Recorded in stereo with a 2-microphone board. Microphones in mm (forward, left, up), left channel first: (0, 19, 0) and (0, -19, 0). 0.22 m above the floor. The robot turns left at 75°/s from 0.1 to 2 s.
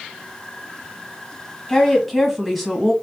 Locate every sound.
1.7 s a woman speaking: 15° left (ahead or behind), 1.4 m; by 2.9 s centre (ahead or behind), 1.4 m